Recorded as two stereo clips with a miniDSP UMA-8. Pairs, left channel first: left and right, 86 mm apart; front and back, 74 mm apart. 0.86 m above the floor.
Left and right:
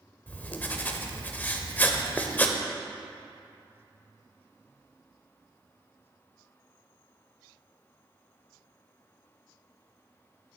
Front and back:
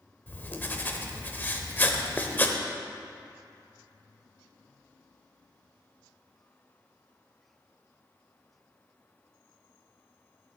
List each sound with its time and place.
0.3 s writing: 35° left, 0.6 m